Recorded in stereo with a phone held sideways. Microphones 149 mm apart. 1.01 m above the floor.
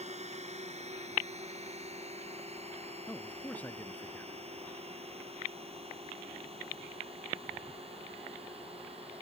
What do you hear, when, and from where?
0.0 s a drone: 45° right (ahead or behind); by 9.2 s 40° right (ahead or behind)
3.1 s a man speaking: 10° left (ahead or behind)